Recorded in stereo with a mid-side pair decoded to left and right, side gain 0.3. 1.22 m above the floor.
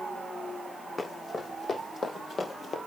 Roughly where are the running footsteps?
Ahead left.